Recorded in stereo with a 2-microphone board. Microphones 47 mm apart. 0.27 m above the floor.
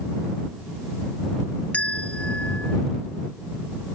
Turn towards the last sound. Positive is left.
turn(degrees=30)  # may be behind; listen again after turning